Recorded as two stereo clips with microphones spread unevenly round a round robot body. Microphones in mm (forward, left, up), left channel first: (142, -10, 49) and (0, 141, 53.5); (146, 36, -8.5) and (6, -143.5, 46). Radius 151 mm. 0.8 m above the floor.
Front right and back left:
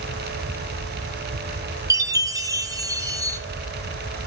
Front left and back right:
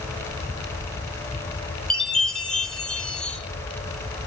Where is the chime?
90° left, 1.0 m.